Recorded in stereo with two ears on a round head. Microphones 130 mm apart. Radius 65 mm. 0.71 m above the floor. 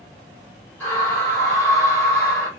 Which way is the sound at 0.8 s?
15° left (ahead or behind).